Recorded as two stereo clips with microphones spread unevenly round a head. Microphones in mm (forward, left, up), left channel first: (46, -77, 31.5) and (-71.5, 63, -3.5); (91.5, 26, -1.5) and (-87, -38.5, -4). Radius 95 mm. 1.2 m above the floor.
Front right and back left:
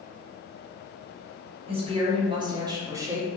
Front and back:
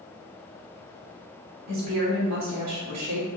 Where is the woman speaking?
170° right, 3 m; by 3.3 s 150° right, 2.0 m.